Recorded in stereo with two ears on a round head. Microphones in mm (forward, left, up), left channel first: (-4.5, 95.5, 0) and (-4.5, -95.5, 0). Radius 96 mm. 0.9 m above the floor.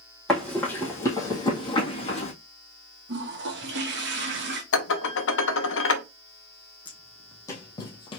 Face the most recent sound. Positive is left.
turn(degrees=25)  # may be behind; listen again after turning